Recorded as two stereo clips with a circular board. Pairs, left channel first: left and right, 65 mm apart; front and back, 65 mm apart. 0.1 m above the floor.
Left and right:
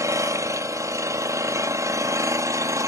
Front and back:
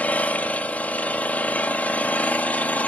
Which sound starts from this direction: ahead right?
An engine running, at 0.0 s.